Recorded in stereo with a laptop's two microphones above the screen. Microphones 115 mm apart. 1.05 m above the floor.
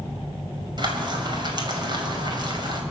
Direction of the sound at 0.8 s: 40° right (ahead or behind).